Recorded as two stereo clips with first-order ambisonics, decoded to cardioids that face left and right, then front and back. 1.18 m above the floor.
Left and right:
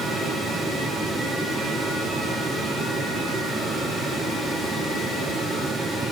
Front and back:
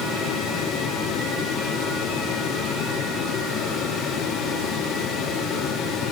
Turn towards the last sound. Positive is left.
No sound to turn to.